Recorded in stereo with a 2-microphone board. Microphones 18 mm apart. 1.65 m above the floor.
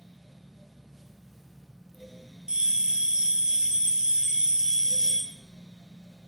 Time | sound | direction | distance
2.5 | a bell | 55° right (ahead or behind) | 0.6 m